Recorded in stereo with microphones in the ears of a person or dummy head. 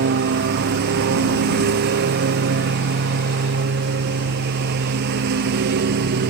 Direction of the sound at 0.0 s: 60° right (ahead or behind).